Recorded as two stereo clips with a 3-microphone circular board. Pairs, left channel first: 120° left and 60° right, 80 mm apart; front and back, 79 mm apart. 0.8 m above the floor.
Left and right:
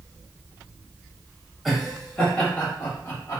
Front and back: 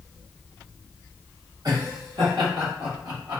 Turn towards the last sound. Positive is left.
turn(degrees=170)